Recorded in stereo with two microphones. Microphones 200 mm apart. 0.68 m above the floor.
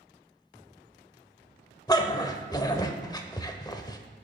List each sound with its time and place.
1.9 s a dog barking: 20° left (ahead or behind), 0.6 m